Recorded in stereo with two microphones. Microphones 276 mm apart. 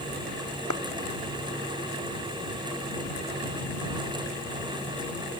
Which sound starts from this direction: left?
A clap, at 0.7 s.